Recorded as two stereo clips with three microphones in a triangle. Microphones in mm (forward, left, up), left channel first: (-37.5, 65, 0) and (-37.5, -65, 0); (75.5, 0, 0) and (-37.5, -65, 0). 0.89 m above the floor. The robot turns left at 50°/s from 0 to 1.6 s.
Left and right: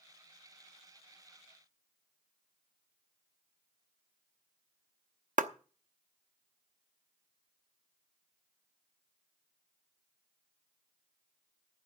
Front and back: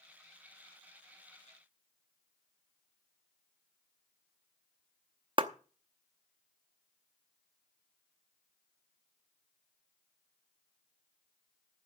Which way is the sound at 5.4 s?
100° right.